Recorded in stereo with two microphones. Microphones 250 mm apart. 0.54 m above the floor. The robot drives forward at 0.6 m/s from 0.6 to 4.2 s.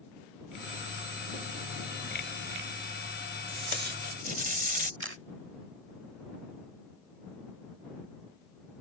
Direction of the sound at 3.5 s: 50° right (ahead or behind).